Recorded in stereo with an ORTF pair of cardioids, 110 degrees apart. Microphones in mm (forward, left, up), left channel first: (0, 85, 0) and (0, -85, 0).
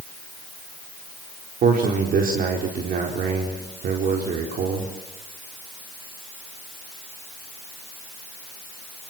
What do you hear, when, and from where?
1.6 s a man speaking: 60° right, 4 m